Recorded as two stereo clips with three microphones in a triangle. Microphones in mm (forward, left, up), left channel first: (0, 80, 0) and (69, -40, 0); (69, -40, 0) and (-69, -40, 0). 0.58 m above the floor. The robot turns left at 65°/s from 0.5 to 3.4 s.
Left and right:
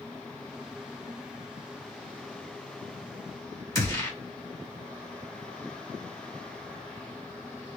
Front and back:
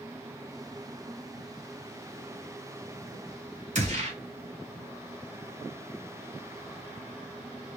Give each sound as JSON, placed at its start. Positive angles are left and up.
{"t": 3.8, "sound": "a gunshot", "azimuth_deg": 180, "distance_m": 1.6}